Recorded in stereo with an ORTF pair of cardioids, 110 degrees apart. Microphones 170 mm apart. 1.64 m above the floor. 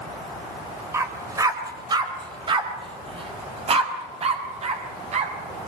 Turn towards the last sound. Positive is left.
turn(degrees=-45)